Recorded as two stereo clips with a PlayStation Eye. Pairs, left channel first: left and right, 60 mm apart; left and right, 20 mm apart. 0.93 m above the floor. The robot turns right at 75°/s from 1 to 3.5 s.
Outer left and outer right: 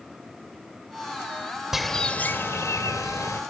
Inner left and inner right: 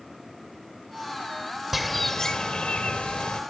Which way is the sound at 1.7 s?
5° right.